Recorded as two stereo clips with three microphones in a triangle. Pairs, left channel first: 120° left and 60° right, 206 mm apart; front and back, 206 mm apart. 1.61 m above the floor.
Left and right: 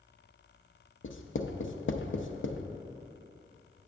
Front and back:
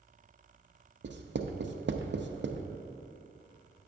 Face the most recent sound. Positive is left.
turn(degrees=145)